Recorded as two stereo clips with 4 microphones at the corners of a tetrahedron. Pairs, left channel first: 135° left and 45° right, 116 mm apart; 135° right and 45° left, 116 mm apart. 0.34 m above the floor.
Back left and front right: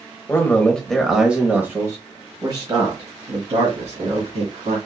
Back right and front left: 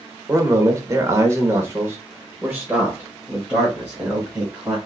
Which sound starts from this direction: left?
A man speaking, at 0.3 s.